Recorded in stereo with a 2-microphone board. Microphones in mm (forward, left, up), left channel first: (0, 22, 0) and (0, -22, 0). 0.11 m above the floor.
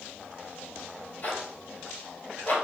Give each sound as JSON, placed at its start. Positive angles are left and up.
{"t": 1.2, "sound": "a zipper", "side_deg": 40, "distance_m": 1.6}